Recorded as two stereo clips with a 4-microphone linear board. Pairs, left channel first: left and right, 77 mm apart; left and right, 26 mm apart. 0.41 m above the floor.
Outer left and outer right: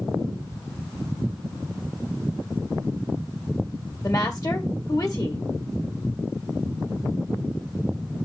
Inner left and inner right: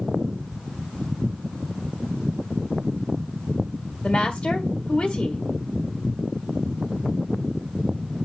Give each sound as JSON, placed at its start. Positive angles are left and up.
{"t": 4.0, "sound": "a woman speaking", "side_deg": 45, "distance_m": 1.8}